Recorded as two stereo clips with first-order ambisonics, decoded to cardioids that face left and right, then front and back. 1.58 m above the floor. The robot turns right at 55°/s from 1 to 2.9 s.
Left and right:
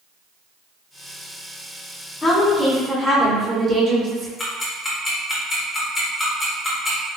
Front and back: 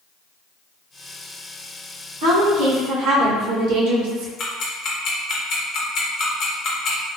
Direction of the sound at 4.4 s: 15° left.